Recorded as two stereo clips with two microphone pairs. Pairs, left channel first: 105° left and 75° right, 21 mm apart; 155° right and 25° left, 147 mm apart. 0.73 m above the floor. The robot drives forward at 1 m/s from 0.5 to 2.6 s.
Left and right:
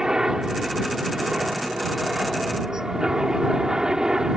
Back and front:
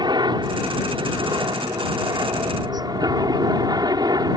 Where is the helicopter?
30° right.